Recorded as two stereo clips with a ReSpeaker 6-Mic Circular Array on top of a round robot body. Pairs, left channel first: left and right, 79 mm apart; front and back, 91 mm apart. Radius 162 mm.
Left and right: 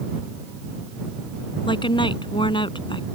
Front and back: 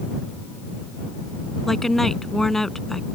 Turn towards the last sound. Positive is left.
turn(degrees=85)